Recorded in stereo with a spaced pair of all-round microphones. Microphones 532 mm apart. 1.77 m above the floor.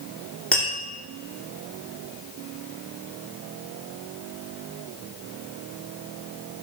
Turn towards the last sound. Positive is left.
turn(degrees=0)  # may be behind; listen again after turning